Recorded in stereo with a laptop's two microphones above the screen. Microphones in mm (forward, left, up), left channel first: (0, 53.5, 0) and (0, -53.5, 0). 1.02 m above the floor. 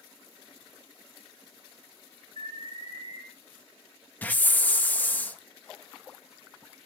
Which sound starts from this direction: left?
An alarm, at 2.4 s.